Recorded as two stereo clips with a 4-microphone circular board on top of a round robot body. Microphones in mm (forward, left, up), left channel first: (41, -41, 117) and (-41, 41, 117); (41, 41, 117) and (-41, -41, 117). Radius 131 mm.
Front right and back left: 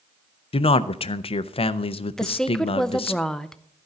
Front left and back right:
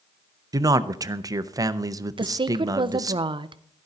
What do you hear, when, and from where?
0.5 s a man speaking: 75° right, 0.6 m
2.2 s a woman speaking: 130° right, 0.6 m